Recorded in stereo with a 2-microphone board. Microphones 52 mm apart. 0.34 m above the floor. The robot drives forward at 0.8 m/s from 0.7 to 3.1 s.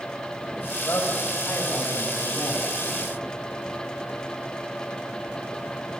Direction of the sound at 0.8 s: 65° left (ahead or behind).